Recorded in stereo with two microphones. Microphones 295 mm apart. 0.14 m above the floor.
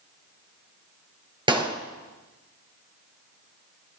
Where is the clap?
15° right (ahead or behind), 2.5 m.